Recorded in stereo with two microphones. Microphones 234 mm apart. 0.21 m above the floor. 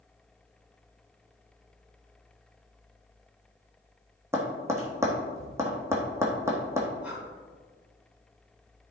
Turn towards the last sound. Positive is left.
turn(degrees=-5)  # may be behind; listen again after turning